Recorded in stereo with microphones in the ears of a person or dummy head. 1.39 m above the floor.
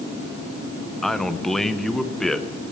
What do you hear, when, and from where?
1.0 s a man speaking: 5° left (ahead or behind), 0.7 m